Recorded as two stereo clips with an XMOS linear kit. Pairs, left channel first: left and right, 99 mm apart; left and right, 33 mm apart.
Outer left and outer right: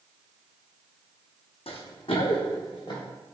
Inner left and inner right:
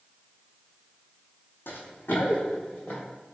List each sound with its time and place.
1.7 s running footsteps: 80° left, 0.7 m; by 3.0 s 45° left (ahead or behind), 1.8 m